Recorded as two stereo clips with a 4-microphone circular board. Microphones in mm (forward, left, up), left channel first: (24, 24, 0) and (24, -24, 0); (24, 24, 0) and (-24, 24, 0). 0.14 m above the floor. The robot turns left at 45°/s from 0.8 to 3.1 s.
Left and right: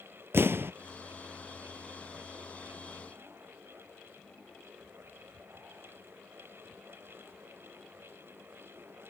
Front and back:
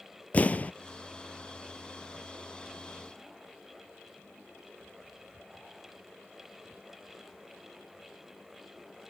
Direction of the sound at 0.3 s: 55° right.